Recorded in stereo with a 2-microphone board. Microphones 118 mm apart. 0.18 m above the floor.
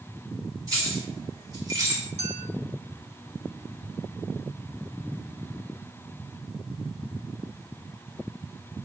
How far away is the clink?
About 1.7 m.